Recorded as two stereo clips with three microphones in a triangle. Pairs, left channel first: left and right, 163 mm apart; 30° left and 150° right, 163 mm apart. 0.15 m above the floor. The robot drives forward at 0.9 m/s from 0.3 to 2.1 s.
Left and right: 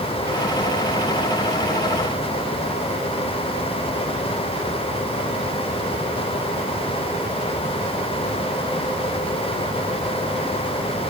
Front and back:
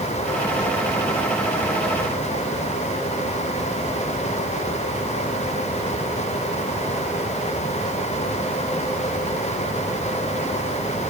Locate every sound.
Only background noise.